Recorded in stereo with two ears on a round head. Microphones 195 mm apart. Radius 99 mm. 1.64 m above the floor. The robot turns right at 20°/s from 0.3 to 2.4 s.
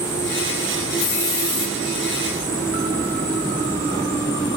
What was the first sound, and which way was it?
A hiss, 70° left (ahead or behind).